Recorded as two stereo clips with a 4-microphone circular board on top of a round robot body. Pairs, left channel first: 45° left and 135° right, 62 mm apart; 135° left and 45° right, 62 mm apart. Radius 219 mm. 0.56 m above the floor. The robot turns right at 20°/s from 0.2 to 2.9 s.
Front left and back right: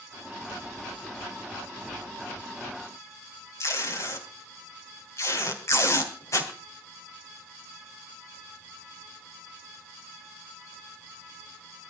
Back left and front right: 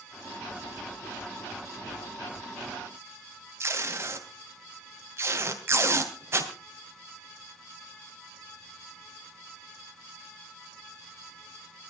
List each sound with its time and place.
3.6 s tape being pulled: 5° left, 3 m